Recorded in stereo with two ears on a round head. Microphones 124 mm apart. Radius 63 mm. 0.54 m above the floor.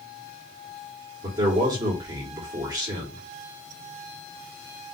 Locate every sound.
1.2 s a man speaking: 30° right (ahead or behind), 1.4 m